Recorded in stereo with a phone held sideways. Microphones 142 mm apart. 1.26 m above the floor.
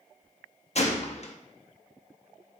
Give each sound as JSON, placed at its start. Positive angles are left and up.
{"t": 0.8, "sound": "a gunshot", "side_deg": 50, "distance_m": 0.9}